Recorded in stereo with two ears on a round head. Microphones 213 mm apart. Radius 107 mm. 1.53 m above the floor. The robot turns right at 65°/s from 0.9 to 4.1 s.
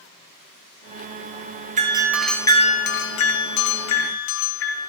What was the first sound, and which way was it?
A doorbell, 30° right.